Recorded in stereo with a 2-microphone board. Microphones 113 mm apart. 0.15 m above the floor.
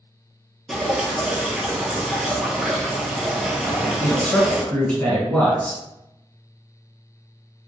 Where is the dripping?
5° right (ahead or behind), 0.7 m.